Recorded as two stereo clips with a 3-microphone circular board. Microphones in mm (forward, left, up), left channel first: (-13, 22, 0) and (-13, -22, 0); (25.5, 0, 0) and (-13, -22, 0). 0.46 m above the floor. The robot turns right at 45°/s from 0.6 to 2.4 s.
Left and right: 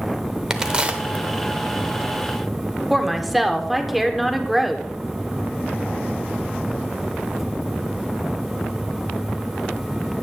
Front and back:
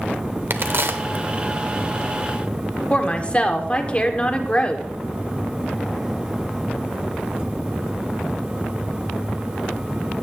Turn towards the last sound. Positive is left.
turn(degrees=0)